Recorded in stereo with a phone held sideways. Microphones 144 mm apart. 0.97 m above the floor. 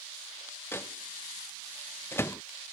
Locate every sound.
0.7 s a microwave: 15° left (ahead or behind)